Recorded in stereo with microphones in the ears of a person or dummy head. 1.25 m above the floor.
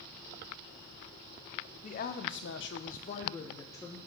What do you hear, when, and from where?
1.8 s a woman speaking: 40° left (ahead or behind), 1.0 m; by 4.0 s 15° left (ahead or behind), 1.3 m